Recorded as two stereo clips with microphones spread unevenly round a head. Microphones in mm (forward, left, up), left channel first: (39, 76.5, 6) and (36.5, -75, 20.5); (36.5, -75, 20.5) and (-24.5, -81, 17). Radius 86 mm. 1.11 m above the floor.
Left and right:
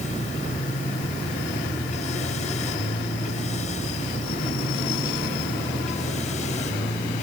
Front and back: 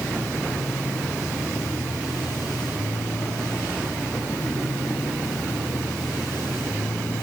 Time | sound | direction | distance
0.0 | a machine running | 45° left | ?